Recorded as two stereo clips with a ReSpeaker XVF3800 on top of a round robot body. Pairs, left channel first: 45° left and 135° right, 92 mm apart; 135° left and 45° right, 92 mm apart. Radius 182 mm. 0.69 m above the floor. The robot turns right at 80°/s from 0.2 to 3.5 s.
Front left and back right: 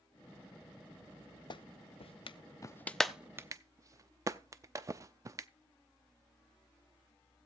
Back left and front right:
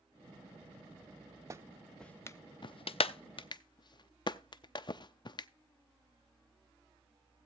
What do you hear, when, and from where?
1.5 s a clap: 10° left, 0.5 m; by 5.5 s 170° left, 0.5 m